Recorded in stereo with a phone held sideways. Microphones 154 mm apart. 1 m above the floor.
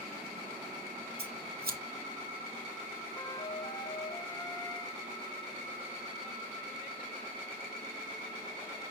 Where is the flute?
25° left (ahead or behind), 0.6 m.